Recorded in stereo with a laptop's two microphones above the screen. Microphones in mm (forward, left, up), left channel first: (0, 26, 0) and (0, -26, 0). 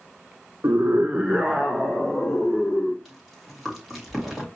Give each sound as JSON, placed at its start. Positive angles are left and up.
{"t": 0.6, "sound": "a scream", "side_deg": -70, "distance_m": 0.7}
{"t": 3.0, "sound": "chewing", "side_deg": 0, "distance_m": 2.5}